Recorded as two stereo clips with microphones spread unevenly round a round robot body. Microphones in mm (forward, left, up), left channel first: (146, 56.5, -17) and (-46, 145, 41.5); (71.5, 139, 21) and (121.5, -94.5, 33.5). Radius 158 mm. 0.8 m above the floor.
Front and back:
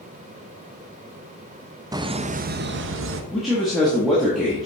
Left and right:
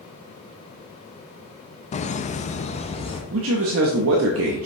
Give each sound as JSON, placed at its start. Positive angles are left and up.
{"t": 1.9, "sound": "laughter", "azimuth_deg": 70, "distance_m": 0.6}
{"t": 3.3, "sound": "a man speaking", "azimuth_deg": -105, "distance_m": 0.7}